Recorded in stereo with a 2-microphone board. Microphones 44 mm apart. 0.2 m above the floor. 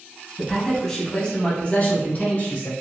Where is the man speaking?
5° left (ahead or behind), 1.1 m; by 2.7 s 45° left (ahead or behind), 1.4 m.